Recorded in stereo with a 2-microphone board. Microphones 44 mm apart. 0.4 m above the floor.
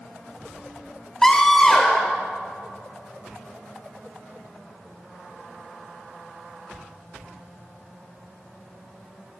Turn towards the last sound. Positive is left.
turn(degrees=15)  # may be behind; listen again after turning